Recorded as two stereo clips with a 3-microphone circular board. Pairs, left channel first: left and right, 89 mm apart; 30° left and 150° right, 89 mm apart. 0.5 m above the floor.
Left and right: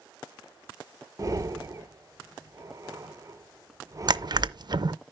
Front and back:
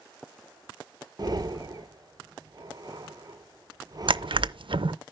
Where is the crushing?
130° right, 0.5 m.